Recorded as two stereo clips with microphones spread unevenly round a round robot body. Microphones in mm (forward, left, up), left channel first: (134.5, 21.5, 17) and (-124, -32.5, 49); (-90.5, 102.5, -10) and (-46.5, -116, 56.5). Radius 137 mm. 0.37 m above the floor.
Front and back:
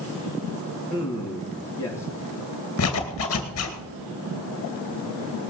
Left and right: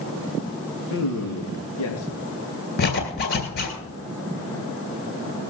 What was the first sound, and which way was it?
A man speaking, 90° left.